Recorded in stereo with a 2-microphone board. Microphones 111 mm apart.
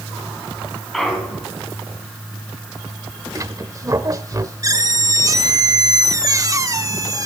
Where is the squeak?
35° right (ahead or behind), 0.8 m.